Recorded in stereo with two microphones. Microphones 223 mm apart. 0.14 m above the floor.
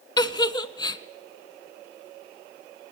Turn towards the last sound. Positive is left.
turn(degrees=20)  # may be behind; listen again after turning